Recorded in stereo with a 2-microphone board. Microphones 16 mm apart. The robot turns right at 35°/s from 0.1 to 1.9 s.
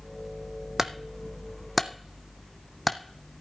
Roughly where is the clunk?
Right.